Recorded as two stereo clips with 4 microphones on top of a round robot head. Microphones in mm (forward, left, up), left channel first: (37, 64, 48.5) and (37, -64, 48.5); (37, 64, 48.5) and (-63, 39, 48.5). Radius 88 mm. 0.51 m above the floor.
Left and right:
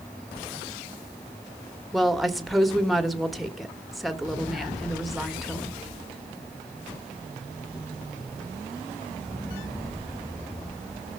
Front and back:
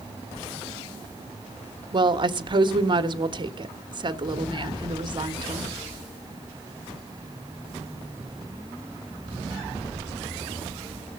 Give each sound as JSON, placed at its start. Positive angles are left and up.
{"t": 1.9, "sound": "a woman speaking", "azimuth_deg": 180, "distance_m": 1.7}